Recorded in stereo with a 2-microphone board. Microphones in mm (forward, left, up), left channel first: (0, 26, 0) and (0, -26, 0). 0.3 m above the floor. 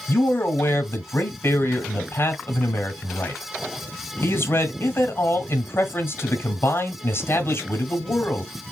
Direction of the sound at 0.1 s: 50° left (ahead or behind).